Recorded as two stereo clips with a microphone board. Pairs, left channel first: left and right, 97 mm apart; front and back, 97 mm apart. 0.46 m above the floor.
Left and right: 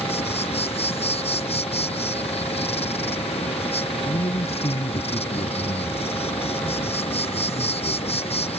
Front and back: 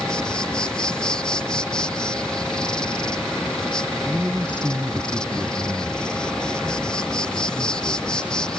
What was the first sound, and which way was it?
An insect, 80° left.